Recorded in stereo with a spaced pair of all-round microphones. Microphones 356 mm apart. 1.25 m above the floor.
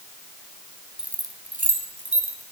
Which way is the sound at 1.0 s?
Centre (ahead or behind).